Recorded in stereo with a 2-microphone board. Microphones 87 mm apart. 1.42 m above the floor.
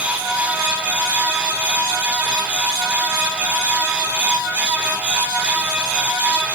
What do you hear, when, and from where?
Only background noise.